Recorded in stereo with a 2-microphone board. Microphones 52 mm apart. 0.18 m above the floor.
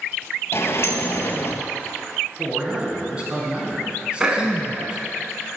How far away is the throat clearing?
About 0.9 m.